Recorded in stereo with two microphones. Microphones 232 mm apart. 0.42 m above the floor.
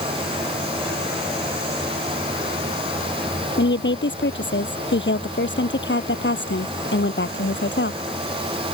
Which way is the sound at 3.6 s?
55° left (ahead or behind).